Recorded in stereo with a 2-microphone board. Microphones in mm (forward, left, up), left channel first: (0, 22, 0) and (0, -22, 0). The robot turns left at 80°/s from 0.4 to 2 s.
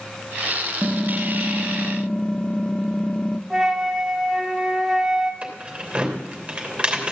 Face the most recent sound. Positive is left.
turn(degrees=-25)  # may be behind; listen again after turning